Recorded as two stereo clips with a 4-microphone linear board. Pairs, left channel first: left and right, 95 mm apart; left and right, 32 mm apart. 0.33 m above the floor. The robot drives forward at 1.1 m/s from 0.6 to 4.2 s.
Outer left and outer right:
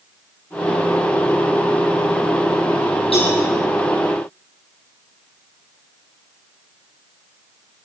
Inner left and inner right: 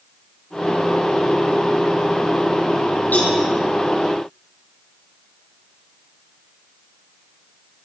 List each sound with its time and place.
3.1 s a cowbell: 80° left, 7.5 m; by 3.4 s 85° left, 7.5 m